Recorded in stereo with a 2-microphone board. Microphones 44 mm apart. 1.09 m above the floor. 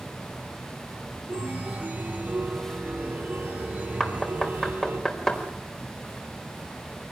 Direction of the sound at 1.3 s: 40° right (ahead or behind).